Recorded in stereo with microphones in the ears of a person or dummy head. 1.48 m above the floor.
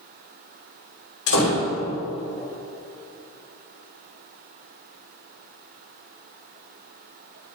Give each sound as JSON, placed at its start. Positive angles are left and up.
{"t": 1.3, "sound": "a door slam", "side_deg": 70, "distance_m": 3.0}